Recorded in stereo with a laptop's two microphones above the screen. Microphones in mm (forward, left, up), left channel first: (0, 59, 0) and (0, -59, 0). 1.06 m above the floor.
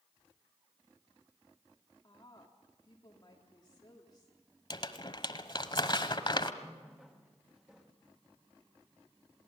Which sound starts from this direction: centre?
A running tap, at 6.6 s.